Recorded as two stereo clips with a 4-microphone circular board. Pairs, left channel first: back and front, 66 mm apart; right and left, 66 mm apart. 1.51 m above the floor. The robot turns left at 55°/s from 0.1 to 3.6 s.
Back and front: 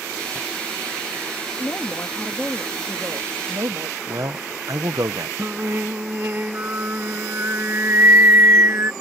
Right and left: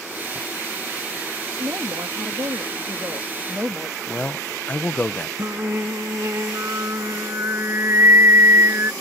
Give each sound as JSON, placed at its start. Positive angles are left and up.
{"t": 1.6, "sound": "a woman speaking", "azimuth_deg": 135}
{"t": 4.1, "sound": "a man speaking", "azimuth_deg": -25}
{"t": 5.4, "sound": "singing", "azimuth_deg": 50}